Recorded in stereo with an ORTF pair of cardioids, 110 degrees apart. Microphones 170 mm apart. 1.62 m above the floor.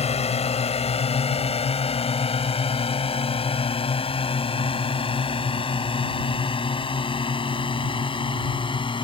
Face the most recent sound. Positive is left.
turn(degrees=30)